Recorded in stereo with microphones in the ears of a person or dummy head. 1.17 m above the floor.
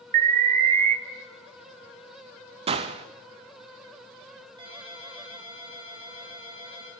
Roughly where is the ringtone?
Right.